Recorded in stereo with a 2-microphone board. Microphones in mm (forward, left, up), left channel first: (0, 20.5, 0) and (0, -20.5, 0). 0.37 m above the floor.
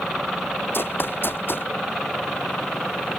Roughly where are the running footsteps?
Left.